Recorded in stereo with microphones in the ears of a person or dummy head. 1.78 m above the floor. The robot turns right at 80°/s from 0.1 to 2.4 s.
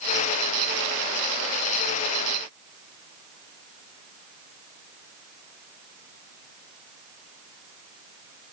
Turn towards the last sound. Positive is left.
No sound to turn to.